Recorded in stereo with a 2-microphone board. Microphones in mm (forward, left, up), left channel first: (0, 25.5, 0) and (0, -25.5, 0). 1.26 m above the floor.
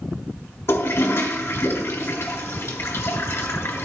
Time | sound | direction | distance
0.7 | a toilet flushing | 50° left (ahead or behind) | 1.4 m